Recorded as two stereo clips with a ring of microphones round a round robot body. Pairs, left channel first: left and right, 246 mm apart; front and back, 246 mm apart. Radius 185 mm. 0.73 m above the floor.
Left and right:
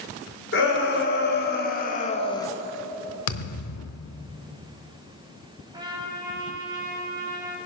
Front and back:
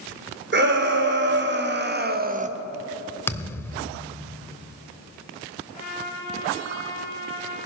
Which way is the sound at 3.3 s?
80° left.